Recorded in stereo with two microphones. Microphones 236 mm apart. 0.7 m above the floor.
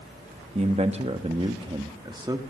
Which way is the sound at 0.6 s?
30° right (ahead or behind).